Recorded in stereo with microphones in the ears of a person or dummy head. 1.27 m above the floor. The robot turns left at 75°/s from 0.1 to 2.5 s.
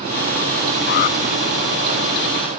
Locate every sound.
0.9 s an alarm: 60° left (ahead or behind); by 1.2 s 40° left (ahead or behind)